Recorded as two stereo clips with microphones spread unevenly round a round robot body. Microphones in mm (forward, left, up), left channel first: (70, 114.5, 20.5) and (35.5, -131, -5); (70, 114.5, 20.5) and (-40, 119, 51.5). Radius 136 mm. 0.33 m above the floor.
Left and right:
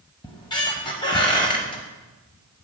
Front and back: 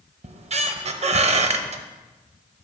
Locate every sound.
0.2 s a squeak: 155° left, 0.7 m